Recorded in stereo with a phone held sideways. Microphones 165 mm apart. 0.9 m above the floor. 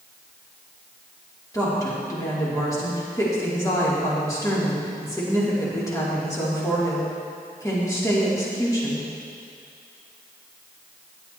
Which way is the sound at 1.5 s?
20° left (ahead or behind).